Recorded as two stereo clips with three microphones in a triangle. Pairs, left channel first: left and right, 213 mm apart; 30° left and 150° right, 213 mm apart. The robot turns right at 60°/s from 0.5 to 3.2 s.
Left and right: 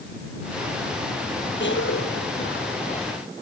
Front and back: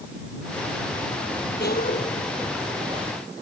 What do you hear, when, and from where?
1.6 s a cough: 65° left; by 3.2 s 155° left